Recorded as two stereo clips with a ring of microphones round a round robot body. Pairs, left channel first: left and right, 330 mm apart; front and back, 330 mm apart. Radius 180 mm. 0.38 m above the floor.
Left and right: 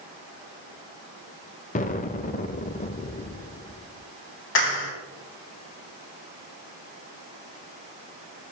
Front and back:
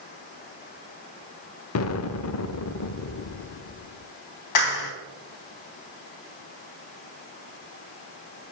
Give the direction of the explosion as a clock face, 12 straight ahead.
11 o'clock.